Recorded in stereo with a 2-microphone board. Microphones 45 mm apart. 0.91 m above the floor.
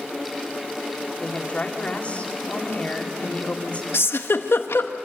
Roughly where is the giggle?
Left.